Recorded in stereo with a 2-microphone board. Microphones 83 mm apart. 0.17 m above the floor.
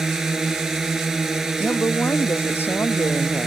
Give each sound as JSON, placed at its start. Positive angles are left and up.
{"t": 0.0, "sound": "a drone", "side_deg": -5}
{"t": 1.6, "sound": "a woman speaking", "side_deg": 30}